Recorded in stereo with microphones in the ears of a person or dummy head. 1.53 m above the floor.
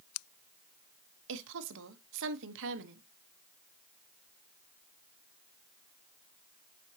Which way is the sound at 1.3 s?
70° right (ahead or behind).